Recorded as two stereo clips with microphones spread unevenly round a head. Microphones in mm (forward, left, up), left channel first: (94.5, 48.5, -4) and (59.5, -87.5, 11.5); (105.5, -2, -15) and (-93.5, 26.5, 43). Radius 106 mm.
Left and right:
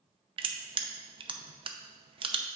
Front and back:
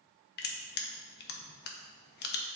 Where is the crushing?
50° right, 0.8 m.